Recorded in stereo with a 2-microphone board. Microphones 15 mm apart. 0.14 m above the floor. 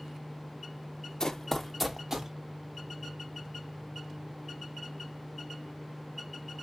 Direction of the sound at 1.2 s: 45° left (ahead or behind).